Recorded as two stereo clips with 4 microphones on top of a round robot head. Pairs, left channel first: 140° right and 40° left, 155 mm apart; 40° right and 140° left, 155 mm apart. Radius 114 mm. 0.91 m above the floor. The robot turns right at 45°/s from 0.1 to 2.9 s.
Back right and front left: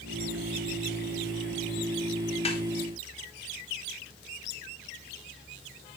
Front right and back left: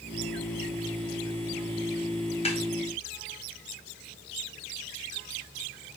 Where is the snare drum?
90° right, 2 m; by 2.6 s 80° right, 2 m.